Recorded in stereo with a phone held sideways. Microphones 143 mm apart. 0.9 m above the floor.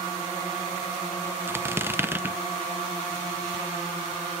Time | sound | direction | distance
1.5 | a squeak | 15° right (ahead or behind) | 0.6 m